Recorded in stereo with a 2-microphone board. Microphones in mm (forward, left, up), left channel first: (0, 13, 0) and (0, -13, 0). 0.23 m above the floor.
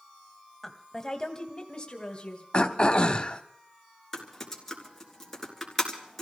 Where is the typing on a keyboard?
10° left (ahead or behind), 3.5 m.